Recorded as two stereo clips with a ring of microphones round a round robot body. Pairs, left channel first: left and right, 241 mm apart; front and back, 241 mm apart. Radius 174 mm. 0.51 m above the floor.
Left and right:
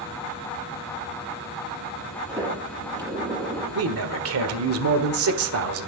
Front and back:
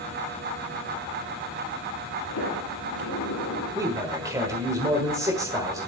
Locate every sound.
2.3 s a sliding door: 15° right, 8 m
3.8 s a man speaking: 100° right, 1.4 m